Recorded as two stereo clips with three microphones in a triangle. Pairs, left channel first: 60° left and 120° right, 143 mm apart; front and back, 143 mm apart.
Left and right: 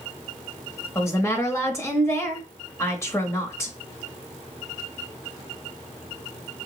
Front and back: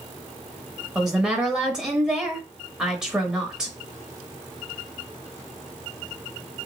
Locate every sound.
0.9 s a woman speaking: 100° left, 0.9 m